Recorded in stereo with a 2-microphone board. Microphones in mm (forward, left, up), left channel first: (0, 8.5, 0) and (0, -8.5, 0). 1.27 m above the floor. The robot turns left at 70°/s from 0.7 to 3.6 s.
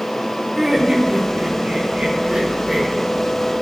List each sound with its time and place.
0.6 s laughter: 20° right, 4.5 m; by 2.9 s 175° right, 4.5 m